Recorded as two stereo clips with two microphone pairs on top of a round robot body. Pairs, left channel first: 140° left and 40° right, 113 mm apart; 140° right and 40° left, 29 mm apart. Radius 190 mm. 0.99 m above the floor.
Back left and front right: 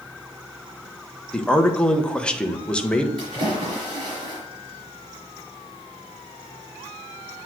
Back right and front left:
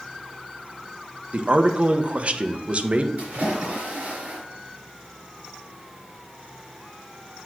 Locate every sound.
1.3 s a man speaking: 60° left, 1.3 m
3.2 s a splash: 10° left, 4 m